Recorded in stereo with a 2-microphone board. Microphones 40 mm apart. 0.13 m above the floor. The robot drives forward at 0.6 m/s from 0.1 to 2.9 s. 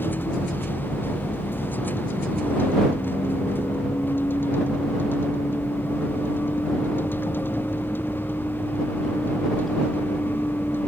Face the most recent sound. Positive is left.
turn(degrees=60)  # may be behind; listen again after turning